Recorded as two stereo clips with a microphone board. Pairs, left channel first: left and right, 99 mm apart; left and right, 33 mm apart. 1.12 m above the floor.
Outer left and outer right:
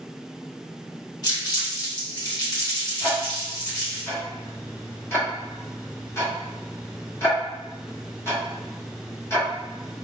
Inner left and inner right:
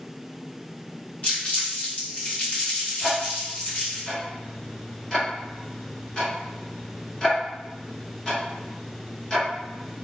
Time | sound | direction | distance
1.2 | crumpling | 45° left (ahead or behind) | 1.2 m
3.0 | ticking | 25° left (ahead or behind) | 1.0 m